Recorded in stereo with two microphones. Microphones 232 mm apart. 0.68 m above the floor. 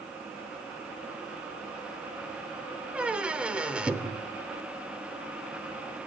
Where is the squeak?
5° right (ahead or behind), 0.6 m.